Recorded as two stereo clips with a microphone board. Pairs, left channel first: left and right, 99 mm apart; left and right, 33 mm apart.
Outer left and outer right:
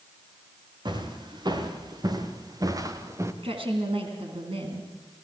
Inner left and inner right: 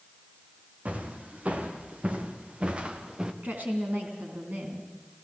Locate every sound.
0.8 s footsteps: 50° right (ahead or behind), 4 m; by 3.3 s 30° right (ahead or behind), 2.0 m
3.4 s a woman speaking: 70° right (ahead or behind), 3 m